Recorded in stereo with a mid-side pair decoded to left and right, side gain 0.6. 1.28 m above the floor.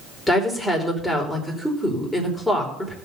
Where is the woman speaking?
10° left, 4.5 m.